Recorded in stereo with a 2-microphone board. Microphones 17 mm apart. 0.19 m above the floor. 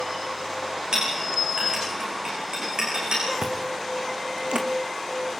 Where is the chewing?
80° right, 2.5 m.